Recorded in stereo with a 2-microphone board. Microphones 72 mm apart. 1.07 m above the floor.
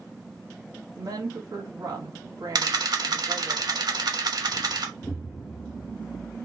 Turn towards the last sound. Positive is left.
turn(degrees=40)  # may be behind; listen again after turning